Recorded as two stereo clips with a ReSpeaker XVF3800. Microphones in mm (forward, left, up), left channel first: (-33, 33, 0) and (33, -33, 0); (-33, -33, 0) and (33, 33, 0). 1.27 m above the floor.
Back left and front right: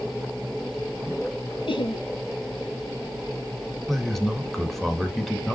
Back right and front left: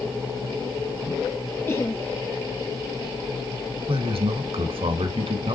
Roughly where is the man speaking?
Ahead left.